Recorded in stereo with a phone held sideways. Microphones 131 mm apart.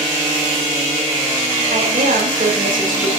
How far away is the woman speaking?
About 5.5 m.